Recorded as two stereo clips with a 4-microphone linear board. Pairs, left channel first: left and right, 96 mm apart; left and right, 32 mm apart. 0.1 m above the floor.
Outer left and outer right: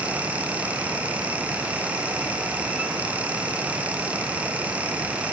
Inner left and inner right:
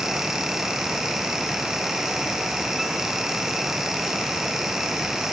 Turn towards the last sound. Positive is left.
No sound to turn to.